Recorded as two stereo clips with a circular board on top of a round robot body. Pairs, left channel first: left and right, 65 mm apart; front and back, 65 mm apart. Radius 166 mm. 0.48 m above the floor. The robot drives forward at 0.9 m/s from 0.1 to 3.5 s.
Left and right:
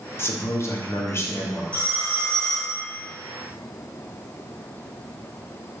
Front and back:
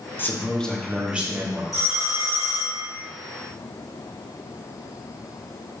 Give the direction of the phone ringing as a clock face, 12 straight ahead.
7 o'clock.